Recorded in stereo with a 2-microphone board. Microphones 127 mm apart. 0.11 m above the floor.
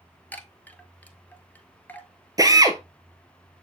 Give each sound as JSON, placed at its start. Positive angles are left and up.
{"t": 0.3, "sound": "a chime", "side_deg": 15, "distance_m": 0.8}
{"t": 2.4, "sound": "a drill", "side_deg": -30, "distance_m": 0.9}